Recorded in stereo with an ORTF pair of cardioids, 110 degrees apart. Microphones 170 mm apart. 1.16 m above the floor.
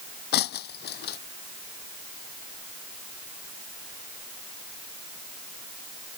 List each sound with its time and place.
0.3 s breaking glass: 70° left